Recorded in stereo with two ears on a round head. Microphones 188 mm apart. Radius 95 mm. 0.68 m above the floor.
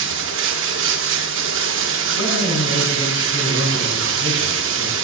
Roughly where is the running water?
Right.